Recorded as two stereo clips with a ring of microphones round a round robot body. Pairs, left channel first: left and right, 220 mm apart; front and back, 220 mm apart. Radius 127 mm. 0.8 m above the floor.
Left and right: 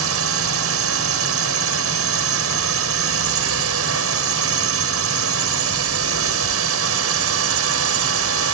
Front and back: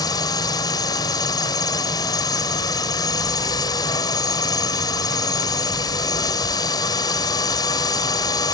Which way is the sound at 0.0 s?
75° right.